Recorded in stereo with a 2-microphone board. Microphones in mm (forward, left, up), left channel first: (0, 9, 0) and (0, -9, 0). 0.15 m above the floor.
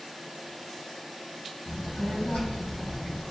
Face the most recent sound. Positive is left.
turn(degrees=80)